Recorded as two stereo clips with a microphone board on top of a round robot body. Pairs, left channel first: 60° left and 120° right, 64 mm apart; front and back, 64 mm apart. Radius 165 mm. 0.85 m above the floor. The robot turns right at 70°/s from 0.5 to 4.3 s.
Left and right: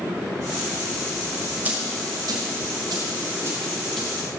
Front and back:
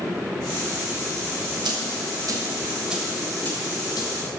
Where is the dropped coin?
170° left, 1.7 m; by 4.1 s 20° right, 1.7 m.